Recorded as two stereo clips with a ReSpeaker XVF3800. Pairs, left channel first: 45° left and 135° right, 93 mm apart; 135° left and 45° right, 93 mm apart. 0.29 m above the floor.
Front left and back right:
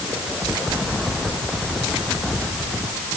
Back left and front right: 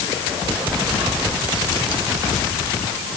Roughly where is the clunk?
No clunk in this recording.